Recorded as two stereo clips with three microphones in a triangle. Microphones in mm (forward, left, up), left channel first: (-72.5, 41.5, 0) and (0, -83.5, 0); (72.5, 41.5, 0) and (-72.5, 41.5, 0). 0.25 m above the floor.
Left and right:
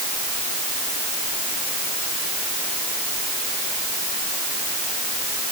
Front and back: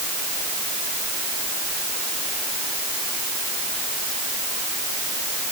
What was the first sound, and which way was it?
Only background noise.